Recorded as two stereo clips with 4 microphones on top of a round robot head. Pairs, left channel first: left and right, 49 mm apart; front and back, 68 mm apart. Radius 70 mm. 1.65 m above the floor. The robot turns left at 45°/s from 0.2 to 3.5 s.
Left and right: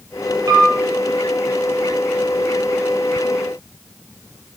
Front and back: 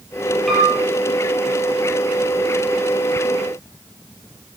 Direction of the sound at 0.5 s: 90° right.